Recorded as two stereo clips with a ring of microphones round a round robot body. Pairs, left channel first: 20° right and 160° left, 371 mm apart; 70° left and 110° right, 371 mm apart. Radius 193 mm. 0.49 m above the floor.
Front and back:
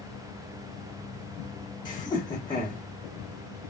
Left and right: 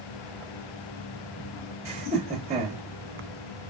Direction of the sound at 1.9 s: 75° right.